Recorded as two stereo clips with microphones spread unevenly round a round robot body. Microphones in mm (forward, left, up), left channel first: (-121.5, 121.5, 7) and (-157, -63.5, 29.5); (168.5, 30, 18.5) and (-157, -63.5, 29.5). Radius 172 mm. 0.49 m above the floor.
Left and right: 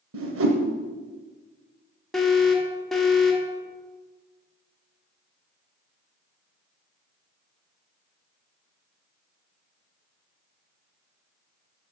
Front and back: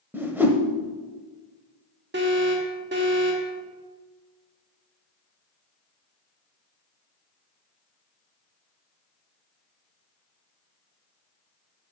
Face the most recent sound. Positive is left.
turn(degrees=155)